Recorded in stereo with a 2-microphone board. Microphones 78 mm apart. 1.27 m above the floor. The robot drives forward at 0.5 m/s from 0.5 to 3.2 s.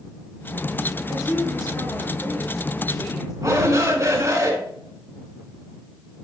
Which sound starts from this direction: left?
A woman speaking, at 1.1 s.